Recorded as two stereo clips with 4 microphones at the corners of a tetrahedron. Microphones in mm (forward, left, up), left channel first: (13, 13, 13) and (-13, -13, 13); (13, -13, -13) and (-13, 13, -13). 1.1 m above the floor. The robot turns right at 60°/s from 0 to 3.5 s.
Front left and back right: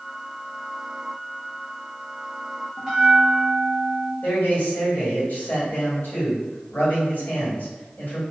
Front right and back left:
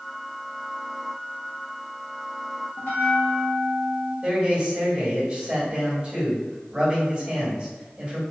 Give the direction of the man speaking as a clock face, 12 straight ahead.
9 o'clock.